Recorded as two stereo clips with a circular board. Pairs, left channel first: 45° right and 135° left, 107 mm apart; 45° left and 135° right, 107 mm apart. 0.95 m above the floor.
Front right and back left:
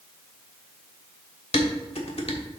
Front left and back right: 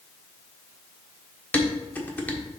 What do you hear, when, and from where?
1.5 s dishes clattering: 30° right, 1.4 m